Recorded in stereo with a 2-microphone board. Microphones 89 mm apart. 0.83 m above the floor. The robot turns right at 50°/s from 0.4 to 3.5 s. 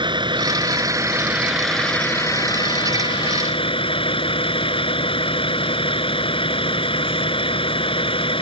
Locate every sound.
0.0 s a vehicle: 60° right; by 8.4 s 95° left